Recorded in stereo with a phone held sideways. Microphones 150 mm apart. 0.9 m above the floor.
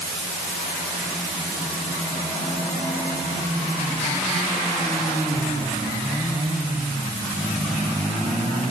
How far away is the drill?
I don't hear a drill.